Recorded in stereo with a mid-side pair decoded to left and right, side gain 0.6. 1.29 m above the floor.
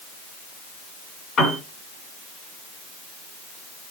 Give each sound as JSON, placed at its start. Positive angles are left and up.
{"t": 1.4, "sound": "a piano", "azimuth_deg": 40, "distance_m": 3.5}